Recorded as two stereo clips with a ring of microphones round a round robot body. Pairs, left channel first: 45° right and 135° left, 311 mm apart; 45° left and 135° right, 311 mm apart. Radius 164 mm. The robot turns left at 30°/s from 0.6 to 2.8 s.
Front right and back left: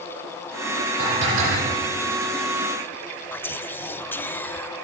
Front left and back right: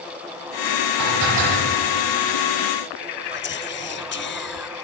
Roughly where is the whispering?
Ahead left.